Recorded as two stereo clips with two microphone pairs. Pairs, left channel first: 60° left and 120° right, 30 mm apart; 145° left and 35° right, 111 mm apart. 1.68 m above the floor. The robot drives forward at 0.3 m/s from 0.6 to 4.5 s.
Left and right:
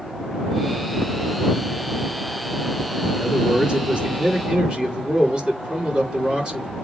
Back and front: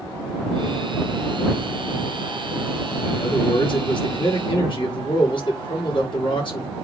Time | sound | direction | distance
3.1 | a man speaking | 175° right | 4 m